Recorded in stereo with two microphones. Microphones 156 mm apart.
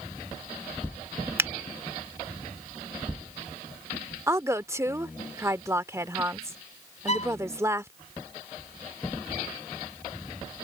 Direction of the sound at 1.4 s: 15° right (ahead or behind).